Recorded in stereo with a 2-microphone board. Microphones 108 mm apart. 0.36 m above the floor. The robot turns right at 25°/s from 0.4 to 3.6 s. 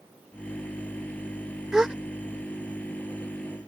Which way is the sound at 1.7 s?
5° right (ahead or behind).